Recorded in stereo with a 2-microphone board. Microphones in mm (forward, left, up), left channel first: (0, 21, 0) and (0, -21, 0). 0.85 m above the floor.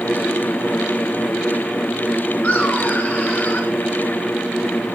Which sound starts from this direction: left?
Laughter, at 2.4 s.